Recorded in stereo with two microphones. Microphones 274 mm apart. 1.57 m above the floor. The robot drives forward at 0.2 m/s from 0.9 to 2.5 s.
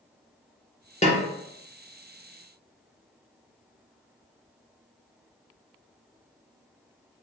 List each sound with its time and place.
1.0 s a snare drum: 25° left (ahead or behind), 0.6 m; by 1.2 s 30° left (ahead or behind), 0.5 m